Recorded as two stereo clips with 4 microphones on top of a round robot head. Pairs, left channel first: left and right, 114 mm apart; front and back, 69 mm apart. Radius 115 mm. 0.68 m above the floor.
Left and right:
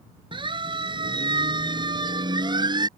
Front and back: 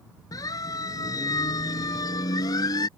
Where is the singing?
I don't hear singing.